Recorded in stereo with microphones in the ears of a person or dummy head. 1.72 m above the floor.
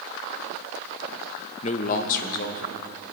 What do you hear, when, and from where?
1.6 s a man speaking: 40° left (ahead or behind), 0.8 m; by 2.8 s 55° left (ahead or behind), 1.5 m